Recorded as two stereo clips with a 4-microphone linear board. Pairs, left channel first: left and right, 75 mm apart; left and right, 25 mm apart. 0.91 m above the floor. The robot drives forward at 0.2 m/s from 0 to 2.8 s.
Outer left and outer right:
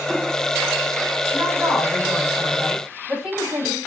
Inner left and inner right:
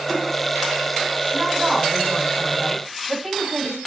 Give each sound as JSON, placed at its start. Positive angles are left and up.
{"t": 1.3, "sound": "a woman speaking", "side_deg": -15, "distance_m": 5.0}